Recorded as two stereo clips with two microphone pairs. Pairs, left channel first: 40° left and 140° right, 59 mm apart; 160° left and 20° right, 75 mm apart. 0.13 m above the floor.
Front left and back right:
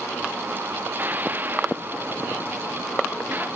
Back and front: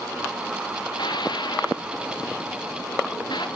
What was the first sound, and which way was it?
Dishes clattering, 165° left.